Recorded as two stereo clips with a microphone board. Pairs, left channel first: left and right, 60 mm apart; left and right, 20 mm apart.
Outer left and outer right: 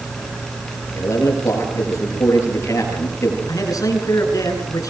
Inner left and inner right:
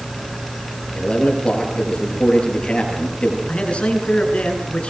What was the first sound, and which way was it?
A man speaking, 55° left (ahead or behind).